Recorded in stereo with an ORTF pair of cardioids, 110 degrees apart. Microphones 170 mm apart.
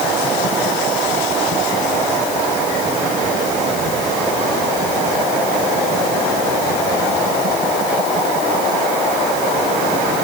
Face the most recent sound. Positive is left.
No sound to turn to.